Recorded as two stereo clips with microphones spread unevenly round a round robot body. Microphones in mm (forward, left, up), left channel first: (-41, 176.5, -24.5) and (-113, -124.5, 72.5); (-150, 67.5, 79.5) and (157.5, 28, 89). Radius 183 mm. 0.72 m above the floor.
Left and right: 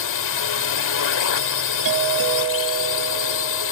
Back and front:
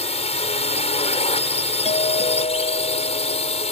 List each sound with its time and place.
0.0 s a drone: 105° left
1.9 s a doorbell: 120° right